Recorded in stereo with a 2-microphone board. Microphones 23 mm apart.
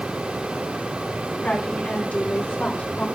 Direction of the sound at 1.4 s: 85° left.